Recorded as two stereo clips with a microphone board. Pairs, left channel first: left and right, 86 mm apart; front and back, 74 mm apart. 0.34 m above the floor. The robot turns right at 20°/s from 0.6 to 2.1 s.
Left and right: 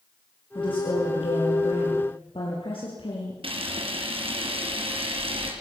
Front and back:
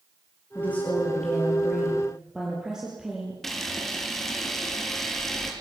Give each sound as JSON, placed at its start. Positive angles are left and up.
{"t": 0.6, "sound": "a woman speaking", "azimuth_deg": 70, "distance_m": 8.5}
{"t": 3.4, "sound": "a camera shutter", "azimuth_deg": -85, "distance_m": 6.0}